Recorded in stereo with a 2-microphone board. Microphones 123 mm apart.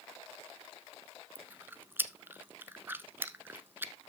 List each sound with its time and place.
1.4 s chewing: 15° right (ahead or behind), 0.8 m